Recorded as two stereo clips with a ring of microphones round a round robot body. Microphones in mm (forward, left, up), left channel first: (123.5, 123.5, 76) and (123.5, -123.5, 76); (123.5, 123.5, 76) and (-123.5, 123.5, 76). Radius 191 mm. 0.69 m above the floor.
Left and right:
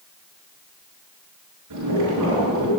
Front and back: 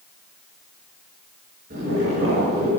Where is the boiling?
110° right, 6 m.